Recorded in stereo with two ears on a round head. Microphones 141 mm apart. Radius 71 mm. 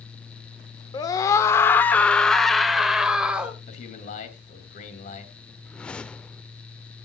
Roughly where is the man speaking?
Left.